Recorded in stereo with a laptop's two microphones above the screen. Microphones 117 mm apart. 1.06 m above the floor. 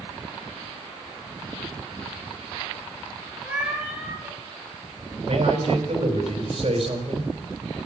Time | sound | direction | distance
3.4 | a cat meowing | 10° right (ahead or behind) | 4.5 m
5.3 | a man speaking | 55° right (ahead or behind) | 4.5 m